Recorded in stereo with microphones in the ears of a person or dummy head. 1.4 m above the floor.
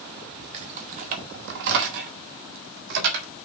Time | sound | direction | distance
0.5 | keys jangling | 35° right (ahead or behind) | 0.9 m